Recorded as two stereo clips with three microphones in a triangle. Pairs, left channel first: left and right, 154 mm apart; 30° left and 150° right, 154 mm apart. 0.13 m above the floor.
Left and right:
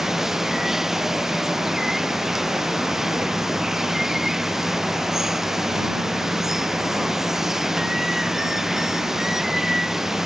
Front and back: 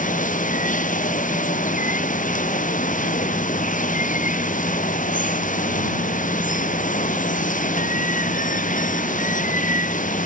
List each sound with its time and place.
0.0 s running water: straight ahead